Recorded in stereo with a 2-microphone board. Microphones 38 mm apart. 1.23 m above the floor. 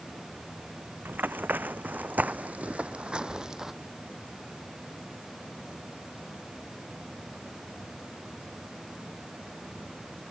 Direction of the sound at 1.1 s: 60° right (ahead or behind).